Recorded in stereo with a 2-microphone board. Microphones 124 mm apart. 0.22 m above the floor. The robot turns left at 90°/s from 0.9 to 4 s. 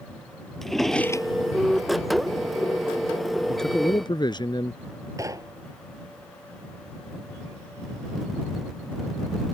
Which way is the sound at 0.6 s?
Centre (ahead or behind).